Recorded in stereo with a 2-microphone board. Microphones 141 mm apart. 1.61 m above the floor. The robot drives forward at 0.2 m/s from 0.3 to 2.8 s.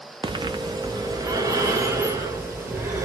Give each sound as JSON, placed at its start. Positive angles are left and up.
{"t": 0.2, "sound": "breathing", "side_deg": -35, "distance_m": 0.6}